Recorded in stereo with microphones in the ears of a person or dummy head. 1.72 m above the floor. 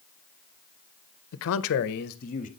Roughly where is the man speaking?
Left.